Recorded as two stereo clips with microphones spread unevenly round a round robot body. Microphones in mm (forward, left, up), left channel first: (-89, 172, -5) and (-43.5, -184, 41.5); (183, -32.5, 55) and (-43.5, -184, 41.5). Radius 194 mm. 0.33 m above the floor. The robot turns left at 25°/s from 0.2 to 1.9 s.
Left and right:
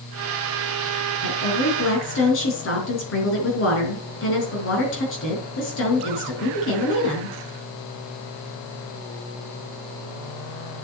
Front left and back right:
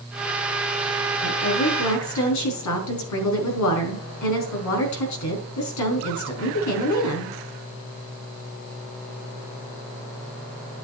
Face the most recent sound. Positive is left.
turn(degrees=40)